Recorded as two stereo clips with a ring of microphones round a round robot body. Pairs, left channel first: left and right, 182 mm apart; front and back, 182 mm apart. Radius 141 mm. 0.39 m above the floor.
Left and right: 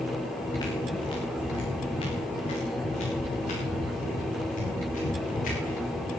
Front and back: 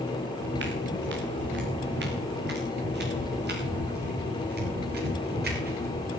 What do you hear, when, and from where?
0.4 s footsteps: 165° left, 4 m; by 6.2 s 150° left, 8.5 m